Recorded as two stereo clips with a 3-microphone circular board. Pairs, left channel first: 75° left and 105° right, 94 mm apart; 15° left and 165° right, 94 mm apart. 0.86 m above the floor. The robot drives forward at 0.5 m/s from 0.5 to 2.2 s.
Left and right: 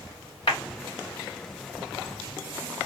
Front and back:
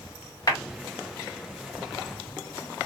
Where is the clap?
60° left, 1.8 m.